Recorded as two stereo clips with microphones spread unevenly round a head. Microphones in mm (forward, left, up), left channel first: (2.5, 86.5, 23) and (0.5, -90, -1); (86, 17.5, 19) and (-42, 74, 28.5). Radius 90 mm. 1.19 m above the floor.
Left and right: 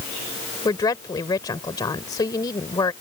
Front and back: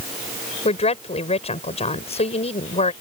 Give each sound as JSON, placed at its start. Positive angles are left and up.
{"t": 0.7, "sound": "a woman speaking", "azimuth_deg": 20}